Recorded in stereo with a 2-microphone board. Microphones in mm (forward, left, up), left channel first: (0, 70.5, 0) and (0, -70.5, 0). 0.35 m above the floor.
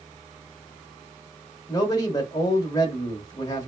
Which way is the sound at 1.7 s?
30° left (ahead or behind).